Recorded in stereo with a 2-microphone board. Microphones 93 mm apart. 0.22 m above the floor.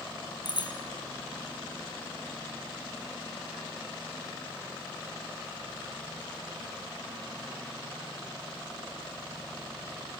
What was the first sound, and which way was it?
A bicycle bell, 50° left (ahead or behind).